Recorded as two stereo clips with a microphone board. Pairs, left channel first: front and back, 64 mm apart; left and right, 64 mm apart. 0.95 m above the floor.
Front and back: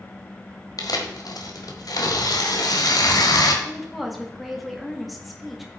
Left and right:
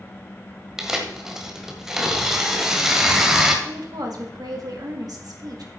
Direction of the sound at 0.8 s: 10° right.